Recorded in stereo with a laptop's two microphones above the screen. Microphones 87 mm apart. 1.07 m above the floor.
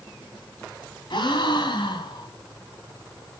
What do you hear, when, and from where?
1.1 s a gasp: 65° left (ahead or behind), 3 m